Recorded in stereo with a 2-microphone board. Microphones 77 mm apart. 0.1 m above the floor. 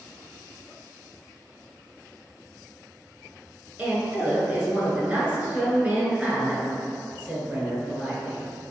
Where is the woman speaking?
15° right (ahead or behind), 1.3 m.